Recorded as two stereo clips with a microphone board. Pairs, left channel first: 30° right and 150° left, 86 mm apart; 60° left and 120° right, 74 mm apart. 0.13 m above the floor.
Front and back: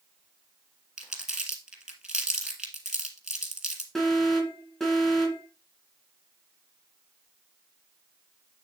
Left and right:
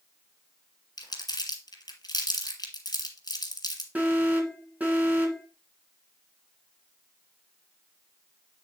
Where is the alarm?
110° right, 2 m.